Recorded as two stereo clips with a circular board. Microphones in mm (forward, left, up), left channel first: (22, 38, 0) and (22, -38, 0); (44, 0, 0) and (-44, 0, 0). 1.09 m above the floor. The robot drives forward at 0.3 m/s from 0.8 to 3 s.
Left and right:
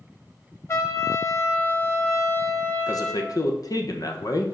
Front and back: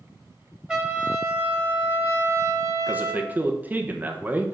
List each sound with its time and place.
0.7 s a trumpet: 105° left, 1.0 m; by 3.3 s 145° left, 1.3 m
2.9 s a man speaking: 110° left, 0.9 m